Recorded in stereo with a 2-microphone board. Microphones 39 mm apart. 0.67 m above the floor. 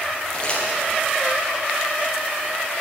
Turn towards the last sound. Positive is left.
turn(degrees=25)  # may be behind; listen again after turning